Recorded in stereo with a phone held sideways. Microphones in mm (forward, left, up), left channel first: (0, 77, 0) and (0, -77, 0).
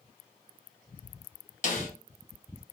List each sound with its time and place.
1.6 s a snare drum: 55° left (ahead or behind), 1.0 m